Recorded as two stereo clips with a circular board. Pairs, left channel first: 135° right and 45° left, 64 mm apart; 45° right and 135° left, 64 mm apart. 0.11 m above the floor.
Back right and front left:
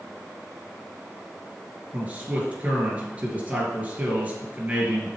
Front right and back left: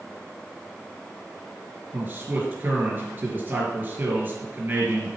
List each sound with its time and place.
1.9 s a man speaking: 100° left, 2.5 m